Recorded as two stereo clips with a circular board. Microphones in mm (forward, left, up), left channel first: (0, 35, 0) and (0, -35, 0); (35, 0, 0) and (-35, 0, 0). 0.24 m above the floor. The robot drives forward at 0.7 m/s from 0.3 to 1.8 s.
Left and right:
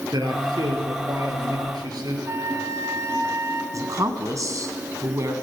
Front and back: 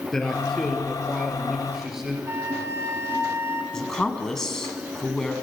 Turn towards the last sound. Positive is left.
turn(degrees=-80)